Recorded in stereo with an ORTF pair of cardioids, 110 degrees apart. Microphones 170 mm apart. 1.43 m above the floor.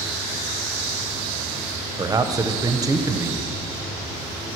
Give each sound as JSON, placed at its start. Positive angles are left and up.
{"t": 2.0, "sound": "a man speaking", "azimuth_deg": -20, "distance_m": 1.0}